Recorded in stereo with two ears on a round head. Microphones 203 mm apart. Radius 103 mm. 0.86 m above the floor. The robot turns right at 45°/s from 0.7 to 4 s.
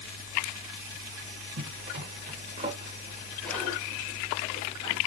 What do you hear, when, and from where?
1.6 s a zipper: 55° right (ahead or behind), 0.8 m; by 5.0 s 25° left (ahead or behind), 0.8 m